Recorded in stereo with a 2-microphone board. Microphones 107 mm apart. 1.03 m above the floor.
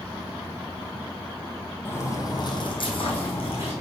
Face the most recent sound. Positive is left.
turn(degrees=65)  # may be behind; listen again after turning